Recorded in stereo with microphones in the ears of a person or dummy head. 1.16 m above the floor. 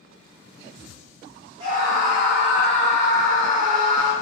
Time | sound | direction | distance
1.6 | a scream | 25° right (ahead or behind) | 0.5 m